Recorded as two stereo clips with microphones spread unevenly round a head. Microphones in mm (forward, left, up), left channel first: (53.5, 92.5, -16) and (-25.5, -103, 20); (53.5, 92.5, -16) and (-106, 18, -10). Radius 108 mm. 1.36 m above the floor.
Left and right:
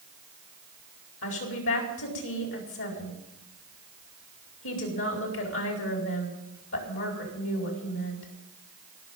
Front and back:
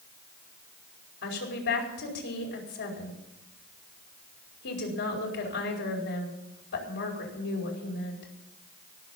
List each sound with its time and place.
1.2 s a woman speaking: 40° left, 4.5 m